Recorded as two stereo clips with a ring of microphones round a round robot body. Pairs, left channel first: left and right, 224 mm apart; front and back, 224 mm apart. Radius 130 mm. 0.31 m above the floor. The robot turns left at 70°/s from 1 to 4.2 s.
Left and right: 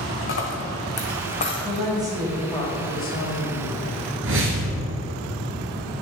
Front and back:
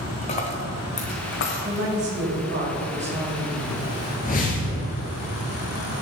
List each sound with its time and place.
0.2 s a dropped coin: 60° left, 1.5 m; by 1.9 s straight ahead, 1.5 m
1.6 s a woman speaking: 130° right, 1.8 m; by 4.1 s 55° left, 1.8 m
4.2 s a whoosh: 60° right, 1.5 m